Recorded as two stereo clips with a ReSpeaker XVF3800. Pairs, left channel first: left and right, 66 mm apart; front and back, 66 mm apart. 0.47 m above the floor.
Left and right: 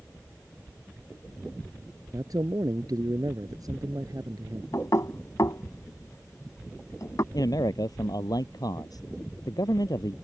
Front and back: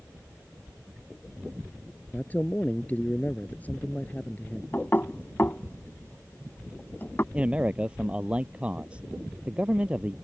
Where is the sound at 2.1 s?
65° right.